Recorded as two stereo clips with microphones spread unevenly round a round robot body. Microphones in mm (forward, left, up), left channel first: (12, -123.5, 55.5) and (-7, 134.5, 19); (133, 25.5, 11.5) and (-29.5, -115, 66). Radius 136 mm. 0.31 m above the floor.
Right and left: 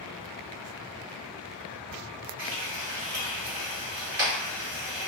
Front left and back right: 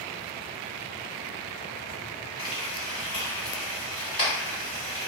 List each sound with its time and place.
2.4 s frying: 80° left, 1.8 m